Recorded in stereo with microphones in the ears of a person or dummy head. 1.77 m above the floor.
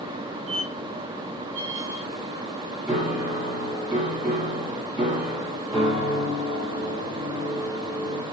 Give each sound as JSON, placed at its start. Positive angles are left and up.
{"t": 0.5, "sound": "a squeak", "side_deg": 5, "distance_m": 2.5}
{"t": 2.9, "sound": "a piano", "side_deg": -5, "distance_m": 1.5}